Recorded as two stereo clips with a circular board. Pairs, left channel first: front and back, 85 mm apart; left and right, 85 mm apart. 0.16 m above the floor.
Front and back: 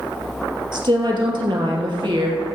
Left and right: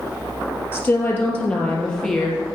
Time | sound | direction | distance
0.7 | a woman speaking | 155° left | 3 m